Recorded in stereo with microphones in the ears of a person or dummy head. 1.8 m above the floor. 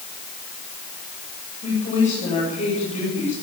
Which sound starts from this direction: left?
A woman speaking, at 1.6 s.